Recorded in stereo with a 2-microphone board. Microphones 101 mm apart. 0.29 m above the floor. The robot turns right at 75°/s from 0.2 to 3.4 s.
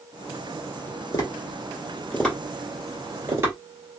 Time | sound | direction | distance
1.1 | tapping | 35° left (ahead or behind) | 1.8 m